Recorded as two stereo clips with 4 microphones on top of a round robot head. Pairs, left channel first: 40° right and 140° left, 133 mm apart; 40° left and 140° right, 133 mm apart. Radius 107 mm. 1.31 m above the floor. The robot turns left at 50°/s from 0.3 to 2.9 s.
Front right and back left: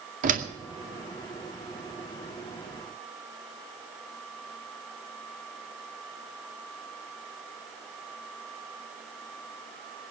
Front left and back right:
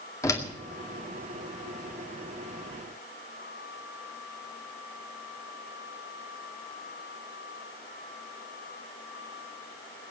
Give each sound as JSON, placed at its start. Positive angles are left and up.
{"t": 0.2, "sound": "a door slam", "azimuth_deg": 110, "distance_m": 2.0}